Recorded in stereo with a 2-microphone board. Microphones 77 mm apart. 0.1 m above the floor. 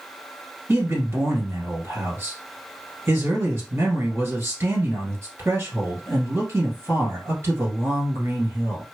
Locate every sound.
0.7 s a man speaking: 35° right (ahead or behind), 2 m